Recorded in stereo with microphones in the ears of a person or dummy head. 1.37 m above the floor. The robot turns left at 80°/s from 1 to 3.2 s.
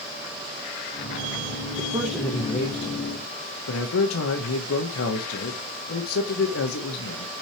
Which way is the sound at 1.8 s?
155° right.